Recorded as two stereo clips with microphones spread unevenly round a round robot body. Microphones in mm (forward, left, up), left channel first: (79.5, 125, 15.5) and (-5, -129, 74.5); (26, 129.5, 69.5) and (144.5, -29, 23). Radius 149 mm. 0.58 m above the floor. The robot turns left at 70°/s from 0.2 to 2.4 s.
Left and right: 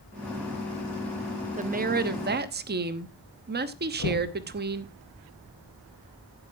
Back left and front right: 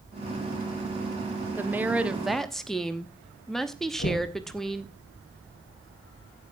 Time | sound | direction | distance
1.6 | a woman speaking | 55° right | 1.0 m
4.0 | knocking | 105° left | 5 m